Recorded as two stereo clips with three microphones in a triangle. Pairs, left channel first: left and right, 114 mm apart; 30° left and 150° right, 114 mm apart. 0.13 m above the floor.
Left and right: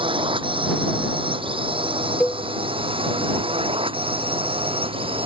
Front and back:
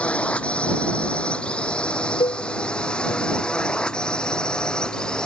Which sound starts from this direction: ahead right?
A drone, at 0.0 s.